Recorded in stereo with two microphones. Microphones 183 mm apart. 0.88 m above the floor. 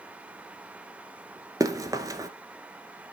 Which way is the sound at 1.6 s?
20° right (ahead or behind).